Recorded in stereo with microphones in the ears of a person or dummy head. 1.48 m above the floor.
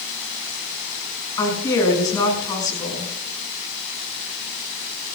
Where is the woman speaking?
15° left (ahead or behind), 6.5 m.